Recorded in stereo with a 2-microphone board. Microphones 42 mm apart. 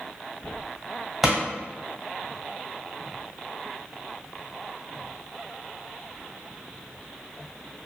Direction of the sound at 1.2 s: 10° right (ahead or behind).